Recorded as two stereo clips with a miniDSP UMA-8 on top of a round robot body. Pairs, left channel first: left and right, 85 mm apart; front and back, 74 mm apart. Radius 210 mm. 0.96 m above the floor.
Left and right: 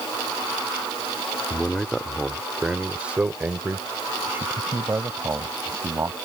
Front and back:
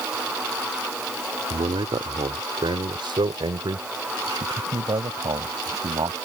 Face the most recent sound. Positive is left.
turn(degrees=-150)